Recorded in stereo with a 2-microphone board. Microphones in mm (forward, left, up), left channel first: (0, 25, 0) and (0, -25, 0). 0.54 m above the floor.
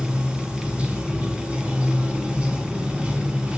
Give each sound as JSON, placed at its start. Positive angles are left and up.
{"t": 0.0, "sound": "running water", "side_deg": -20, "distance_m": 3.0}